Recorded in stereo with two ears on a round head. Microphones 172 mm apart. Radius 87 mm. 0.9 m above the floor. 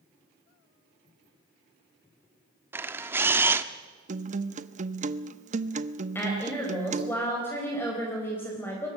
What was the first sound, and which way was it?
A camera shutter, 10° right (ahead or behind).